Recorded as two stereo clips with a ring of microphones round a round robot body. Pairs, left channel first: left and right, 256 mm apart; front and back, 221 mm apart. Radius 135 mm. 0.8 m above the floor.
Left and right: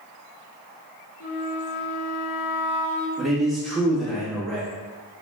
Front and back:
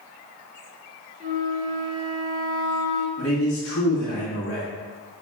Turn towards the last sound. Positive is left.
turn(degrees=0)